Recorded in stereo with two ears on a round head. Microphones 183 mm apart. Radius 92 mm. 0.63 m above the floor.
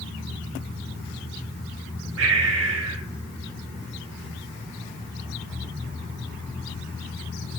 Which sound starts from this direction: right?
Breathing, at 2.2 s.